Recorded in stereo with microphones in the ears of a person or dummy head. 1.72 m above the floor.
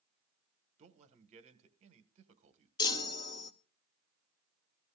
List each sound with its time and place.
0.8 s a man speaking: 35° right (ahead or behind), 1.6 m
2.8 s a chime: 25° left (ahead or behind), 1.0 m